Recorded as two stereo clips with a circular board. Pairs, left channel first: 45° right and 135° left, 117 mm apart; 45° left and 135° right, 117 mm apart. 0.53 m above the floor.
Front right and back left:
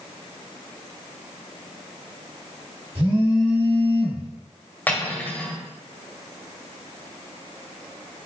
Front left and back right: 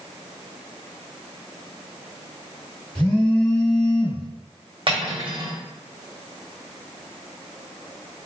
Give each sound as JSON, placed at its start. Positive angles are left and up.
{"t": 3.0, "sound": "a phone buzzing", "azimuth_deg": 120, "distance_m": 1.4}
{"t": 4.9, "sound": "cutlery clinking", "azimuth_deg": -115, "distance_m": 0.7}